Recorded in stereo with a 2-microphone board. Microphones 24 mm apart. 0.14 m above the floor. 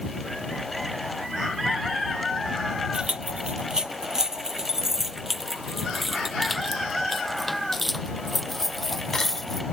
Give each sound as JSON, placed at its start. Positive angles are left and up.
{"t": 2.9, "sound": "keys jangling", "side_deg": -40}